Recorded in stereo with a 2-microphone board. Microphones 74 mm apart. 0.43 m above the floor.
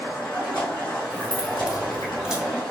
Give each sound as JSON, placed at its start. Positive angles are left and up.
{"t": 0.0, "sound": "running water", "side_deg": 85, "distance_m": 1.3}
{"t": 1.1, "sound": "keys jangling", "side_deg": -10, "distance_m": 0.7}